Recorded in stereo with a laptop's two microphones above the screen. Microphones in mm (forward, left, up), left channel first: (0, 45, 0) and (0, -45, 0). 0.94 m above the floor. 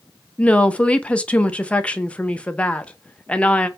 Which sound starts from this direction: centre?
A woman speaking, at 0.4 s.